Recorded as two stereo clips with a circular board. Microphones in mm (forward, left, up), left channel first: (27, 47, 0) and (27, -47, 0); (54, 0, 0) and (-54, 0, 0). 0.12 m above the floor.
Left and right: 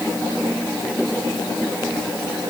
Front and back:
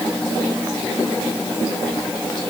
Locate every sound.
Only background noise.